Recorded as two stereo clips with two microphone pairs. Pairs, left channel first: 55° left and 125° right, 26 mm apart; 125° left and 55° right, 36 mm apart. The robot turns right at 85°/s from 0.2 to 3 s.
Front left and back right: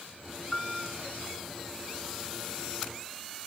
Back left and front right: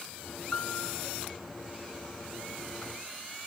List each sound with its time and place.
0.5 s a piano: 95° left, 2 m; by 1.0 s 135° left, 2 m